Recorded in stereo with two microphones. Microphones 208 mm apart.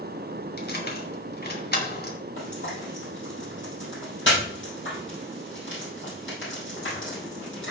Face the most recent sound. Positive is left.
turn(degrees=65)  # may be behind; listen again after turning